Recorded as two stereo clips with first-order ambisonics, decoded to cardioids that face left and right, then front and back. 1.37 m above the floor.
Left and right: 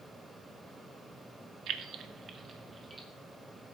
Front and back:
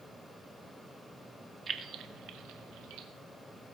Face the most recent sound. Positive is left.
turn(degrees=-165)